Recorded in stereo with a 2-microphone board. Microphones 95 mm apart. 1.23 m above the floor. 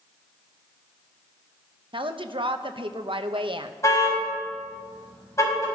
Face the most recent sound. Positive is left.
turn(degrees=30)  # may be behind; listen again after turning